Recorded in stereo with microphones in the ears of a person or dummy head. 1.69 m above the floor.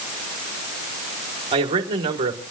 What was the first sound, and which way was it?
A man speaking, 30° right (ahead or behind).